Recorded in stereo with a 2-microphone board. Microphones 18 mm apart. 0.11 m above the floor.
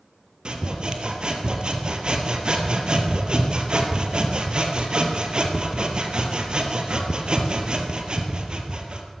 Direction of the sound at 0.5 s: 50° right (ahead or behind).